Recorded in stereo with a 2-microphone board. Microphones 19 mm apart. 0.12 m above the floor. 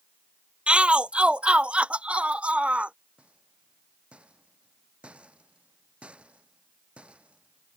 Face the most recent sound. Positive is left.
turn(degrees=-65)  # may be behind; listen again after turning